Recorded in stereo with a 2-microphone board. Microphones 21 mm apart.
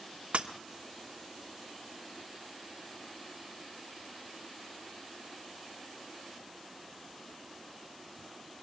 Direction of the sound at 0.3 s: 65° right (ahead or behind).